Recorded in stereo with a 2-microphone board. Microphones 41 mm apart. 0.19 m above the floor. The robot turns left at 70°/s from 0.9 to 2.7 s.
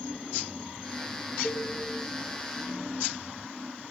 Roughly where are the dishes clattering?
Left.